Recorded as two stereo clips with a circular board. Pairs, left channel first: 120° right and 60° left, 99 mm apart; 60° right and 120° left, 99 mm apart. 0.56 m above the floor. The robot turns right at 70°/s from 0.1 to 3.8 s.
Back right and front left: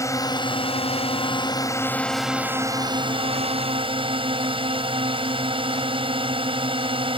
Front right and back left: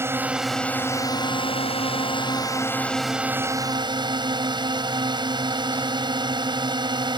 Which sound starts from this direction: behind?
A drone, at 0.0 s.